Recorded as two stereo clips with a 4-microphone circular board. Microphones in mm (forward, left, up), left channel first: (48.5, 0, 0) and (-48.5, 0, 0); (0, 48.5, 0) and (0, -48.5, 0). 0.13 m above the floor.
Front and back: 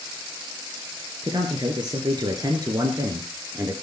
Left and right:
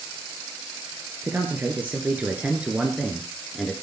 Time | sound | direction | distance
1.2 | a man speaking | 155° right | 2.5 m